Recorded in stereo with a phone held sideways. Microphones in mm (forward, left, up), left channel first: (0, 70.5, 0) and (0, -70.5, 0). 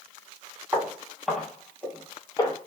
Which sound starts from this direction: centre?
Footsteps, at 0.7 s.